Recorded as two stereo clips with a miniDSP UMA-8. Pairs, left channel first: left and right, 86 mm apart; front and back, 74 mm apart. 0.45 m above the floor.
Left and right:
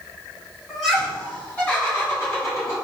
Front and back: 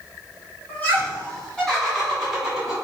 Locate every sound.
0.7 s laughter: 5° right, 1.5 m; by 2.7 s 100° left, 1.7 m